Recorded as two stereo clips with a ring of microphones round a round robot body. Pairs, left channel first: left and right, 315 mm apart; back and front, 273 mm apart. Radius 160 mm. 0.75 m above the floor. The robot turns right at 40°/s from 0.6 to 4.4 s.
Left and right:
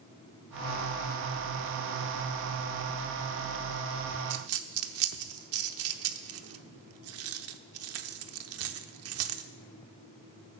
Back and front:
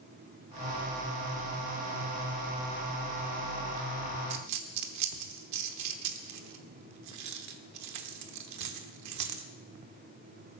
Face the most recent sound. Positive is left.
turn(degrees=-45)